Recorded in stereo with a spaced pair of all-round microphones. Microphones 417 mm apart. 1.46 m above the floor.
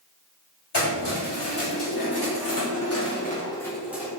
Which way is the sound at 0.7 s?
75° left (ahead or behind).